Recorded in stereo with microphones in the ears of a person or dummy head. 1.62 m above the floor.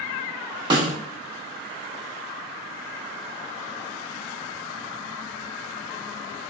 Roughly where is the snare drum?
Right.